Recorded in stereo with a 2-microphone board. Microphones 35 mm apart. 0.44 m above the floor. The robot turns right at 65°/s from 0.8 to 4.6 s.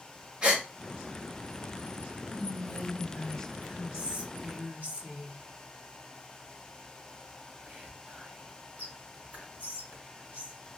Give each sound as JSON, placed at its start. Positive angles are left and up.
{"t": 0.4, "sound": "a gasp", "side_deg": -30, "distance_m": 1.2}
{"t": 2.3, "sound": "whispering", "side_deg": 60, "distance_m": 1.6}